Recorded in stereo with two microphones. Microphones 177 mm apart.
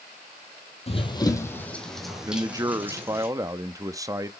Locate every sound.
0.9 s running footsteps: 35° left (ahead or behind), 1.4 m; by 3.3 s 15° right (ahead or behind), 3 m
2.3 s a man speaking: 20° right (ahead or behind), 0.5 m